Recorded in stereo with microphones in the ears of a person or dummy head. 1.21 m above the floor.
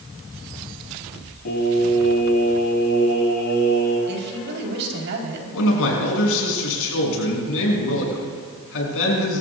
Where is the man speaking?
75° left (ahead or behind), 6 m.